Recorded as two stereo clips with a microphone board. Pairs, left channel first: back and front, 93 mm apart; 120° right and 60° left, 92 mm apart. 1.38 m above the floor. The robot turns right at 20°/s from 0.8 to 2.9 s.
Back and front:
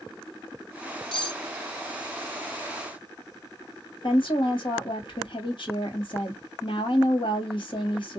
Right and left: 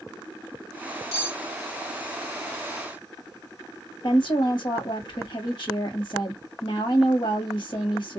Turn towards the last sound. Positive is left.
turn(degrees=-150)